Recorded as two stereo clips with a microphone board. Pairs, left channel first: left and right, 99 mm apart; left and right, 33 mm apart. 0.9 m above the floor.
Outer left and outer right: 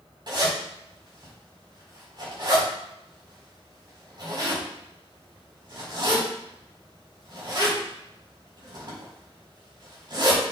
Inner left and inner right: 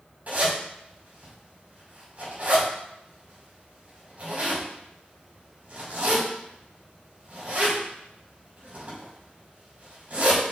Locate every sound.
0.3 s a zipper: 45° right (ahead or behind), 5.5 m